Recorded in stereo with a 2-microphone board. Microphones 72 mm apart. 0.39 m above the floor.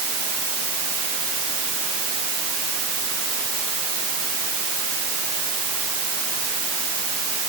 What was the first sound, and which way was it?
Only background noise.